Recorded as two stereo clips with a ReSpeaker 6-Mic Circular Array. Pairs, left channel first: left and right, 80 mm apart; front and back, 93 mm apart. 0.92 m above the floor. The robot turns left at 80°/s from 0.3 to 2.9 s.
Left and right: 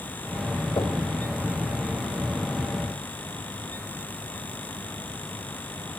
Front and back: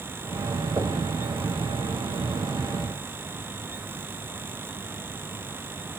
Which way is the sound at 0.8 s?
125° left.